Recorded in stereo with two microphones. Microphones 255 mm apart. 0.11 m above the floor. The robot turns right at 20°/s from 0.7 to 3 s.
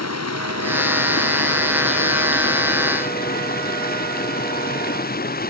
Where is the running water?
95° left; by 5.5 s 145° left.